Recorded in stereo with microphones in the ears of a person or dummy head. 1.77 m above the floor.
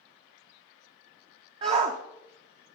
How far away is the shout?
About 0.8 m.